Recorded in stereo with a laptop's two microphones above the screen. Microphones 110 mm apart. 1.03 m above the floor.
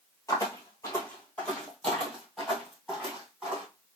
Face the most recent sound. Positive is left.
turn(degrees=-10)  # may be behind; listen again after turning